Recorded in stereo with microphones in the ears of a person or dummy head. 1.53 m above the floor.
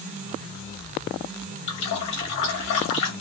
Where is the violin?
No violin in this recording.